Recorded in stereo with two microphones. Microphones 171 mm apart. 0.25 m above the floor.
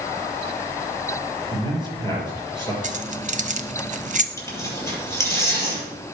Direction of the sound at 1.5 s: 20° left (ahead or behind).